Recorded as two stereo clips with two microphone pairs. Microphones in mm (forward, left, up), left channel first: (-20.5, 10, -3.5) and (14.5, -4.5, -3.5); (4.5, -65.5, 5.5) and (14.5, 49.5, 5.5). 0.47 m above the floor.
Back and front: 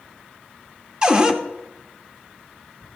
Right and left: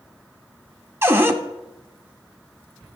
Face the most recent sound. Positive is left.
turn(degrees=30)